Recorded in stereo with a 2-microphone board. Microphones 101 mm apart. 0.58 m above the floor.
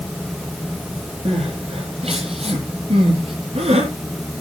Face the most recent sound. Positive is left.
turn(degrees=-90)